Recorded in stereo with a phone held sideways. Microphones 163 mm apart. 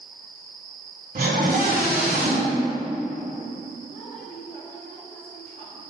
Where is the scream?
60° right (ahead or behind), 3 m.